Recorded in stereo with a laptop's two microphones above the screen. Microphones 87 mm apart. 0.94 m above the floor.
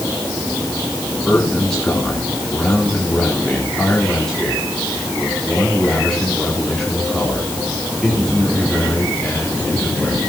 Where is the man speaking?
10° left (ahead or behind), 3 m.